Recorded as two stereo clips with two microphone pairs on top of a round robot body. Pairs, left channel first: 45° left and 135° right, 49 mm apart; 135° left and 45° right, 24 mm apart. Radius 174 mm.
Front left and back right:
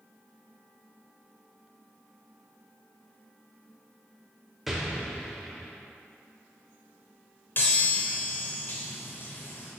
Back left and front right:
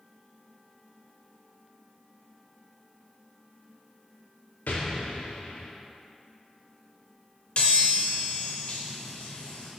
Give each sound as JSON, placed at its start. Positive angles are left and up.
{"t": 4.7, "sound": "an explosion", "azimuth_deg": 140, "distance_m": 0.7}
{"t": 7.6, "sound": "a chime", "azimuth_deg": 95, "distance_m": 0.6}